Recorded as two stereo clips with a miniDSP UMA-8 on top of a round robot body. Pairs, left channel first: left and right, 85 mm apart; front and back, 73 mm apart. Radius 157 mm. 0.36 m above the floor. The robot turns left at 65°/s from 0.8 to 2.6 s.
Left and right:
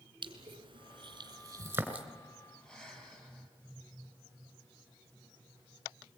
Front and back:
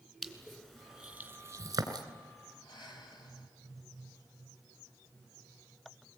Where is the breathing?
10° left, 4.5 m.